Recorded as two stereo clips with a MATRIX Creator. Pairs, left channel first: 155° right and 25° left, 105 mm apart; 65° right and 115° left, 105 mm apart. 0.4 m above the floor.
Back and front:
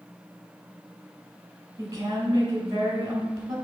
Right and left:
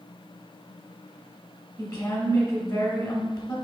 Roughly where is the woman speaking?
Ahead right.